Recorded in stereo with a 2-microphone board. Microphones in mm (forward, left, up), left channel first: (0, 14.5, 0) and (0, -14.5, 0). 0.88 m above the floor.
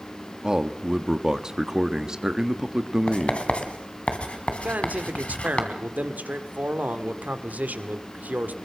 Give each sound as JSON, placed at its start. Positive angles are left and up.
{"t": 0.4, "sound": "a man speaking", "side_deg": -25, "distance_m": 1.4}
{"t": 3.1, "sound": "writing", "side_deg": 45, "distance_m": 2.5}
{"t": 4.6, "sound": "a man speaking", "side_deg": -75, "distance_m": 2.0}